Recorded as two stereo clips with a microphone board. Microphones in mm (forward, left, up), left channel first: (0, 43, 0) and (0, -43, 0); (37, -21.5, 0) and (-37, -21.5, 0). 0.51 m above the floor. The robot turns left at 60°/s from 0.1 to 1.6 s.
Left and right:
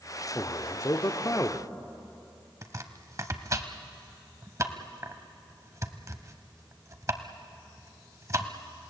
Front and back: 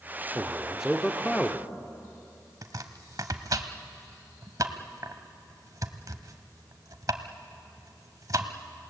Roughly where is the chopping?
Behind right.